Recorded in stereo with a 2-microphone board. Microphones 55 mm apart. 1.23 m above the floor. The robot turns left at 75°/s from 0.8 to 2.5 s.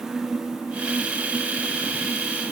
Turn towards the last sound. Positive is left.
No sound to turn to.